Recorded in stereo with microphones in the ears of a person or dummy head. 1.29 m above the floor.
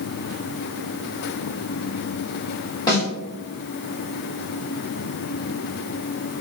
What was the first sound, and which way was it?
A snare drum, 25° left (ahead or behind).